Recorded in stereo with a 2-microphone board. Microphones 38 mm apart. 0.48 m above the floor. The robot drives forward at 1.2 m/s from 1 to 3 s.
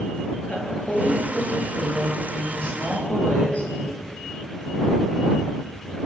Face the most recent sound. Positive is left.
turn(degrees=30)  # may be behind; listen again after turning